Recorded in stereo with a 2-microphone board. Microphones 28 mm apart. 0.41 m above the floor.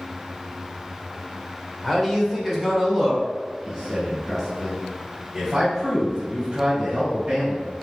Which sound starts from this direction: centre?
A man speaking, at 1.8 s.